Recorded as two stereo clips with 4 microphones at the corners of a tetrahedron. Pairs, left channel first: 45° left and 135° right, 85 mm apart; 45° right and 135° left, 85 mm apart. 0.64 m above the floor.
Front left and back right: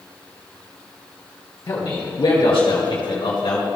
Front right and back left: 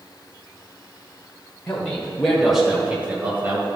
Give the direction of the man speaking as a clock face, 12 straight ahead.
11 o'clock.